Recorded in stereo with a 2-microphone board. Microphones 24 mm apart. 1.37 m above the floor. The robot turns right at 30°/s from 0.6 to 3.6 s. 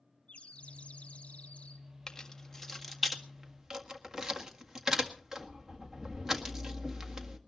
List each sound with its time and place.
0.3 s a bird: 65° left, 2 m; by 1.9 s 105° left, 2 m
2.1 s keys jangling: 30° left (ahead or behind), 1.7 m; by 7.4 s 15° right (ahead or behind), 1.7 m